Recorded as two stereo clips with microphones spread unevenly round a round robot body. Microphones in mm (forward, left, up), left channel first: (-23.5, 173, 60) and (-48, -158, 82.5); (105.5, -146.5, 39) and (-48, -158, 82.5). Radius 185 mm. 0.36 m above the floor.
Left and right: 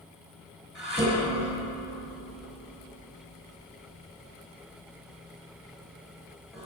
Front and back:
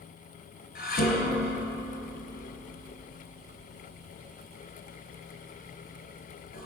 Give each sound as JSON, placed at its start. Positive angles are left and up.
{"t": 0.8, "sound": "dishes clattering", "azimuth_deg": -5, "distance_m": 4.0}